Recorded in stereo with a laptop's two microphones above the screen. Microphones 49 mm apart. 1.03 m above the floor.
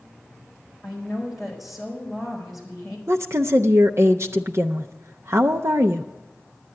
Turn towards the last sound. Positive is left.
turn(degrees=-65)  # may be behind; listen again after turning